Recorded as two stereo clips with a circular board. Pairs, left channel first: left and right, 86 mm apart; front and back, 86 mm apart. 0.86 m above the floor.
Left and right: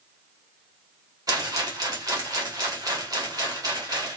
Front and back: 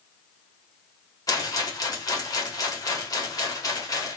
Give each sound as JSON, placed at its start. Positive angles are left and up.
{"t": 1.3, "sound": "a rattle", "azimuth_deg": -45, "distance_m": 1.5}